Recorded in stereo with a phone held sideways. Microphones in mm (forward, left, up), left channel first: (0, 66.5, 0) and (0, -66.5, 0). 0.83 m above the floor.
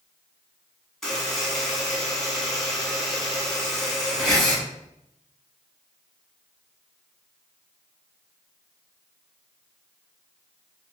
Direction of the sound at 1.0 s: Centre (ahead or behind).